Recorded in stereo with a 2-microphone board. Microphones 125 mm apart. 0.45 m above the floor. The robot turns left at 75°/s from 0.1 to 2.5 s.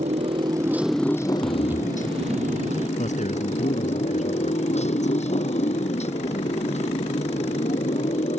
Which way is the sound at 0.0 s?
120° right.